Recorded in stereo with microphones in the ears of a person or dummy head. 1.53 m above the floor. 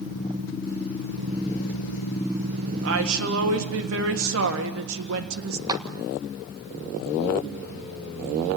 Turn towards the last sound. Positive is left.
turn(degrees=-20)  # may be behind; listen again after turning